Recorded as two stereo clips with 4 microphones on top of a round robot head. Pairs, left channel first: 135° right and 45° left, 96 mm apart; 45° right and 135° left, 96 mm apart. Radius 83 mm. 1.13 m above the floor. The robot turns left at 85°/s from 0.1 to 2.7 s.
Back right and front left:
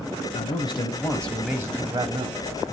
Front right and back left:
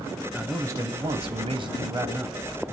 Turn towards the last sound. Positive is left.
turn(degrees=30)